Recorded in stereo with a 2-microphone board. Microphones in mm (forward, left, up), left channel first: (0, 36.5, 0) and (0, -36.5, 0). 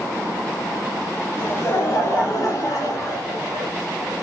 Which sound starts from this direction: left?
Laughter, at 1.4 s.